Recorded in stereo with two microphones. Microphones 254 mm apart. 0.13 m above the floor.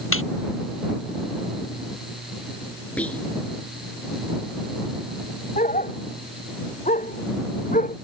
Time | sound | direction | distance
0.1 | laughter | 55° left (ahead or behind) | ?
3.0 | whispering | 5° left (ahead or behind) | ?
5.6 | a dog barking | 30° left (ahead or behind) | ?